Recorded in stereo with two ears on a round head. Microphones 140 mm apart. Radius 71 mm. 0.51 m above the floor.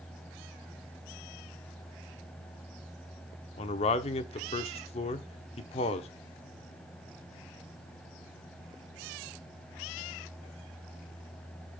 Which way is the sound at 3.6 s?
40° left (ahead or behind).